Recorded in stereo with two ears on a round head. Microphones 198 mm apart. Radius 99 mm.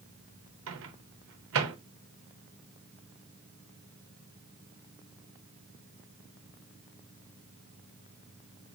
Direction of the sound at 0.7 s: 65° right (ahead or behind).